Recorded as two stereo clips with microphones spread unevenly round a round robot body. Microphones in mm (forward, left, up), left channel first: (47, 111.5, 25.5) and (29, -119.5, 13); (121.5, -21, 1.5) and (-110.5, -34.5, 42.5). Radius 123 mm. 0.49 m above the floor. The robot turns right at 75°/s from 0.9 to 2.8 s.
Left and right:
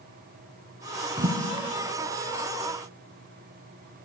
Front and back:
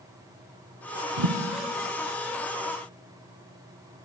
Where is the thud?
160° right, 0.7 m; by 1.4 s 150° right, 0.7 m.